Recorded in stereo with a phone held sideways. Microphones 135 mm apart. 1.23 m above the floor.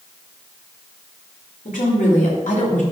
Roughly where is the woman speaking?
Left.